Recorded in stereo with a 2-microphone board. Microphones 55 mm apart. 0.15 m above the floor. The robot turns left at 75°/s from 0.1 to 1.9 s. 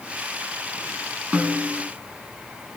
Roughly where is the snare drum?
Right.